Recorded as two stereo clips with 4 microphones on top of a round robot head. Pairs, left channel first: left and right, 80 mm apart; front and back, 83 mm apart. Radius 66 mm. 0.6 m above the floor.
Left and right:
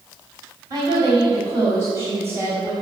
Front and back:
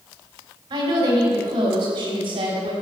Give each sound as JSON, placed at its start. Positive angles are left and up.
{"t": 0.7, "sound": "a woman speaking", "azimuth_deg": -140, "distance_m": 3.5}